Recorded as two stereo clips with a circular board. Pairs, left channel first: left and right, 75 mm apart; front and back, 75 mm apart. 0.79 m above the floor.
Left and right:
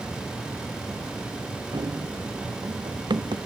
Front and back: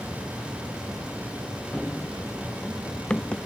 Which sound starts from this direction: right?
Running footsteps, at 1.7 s.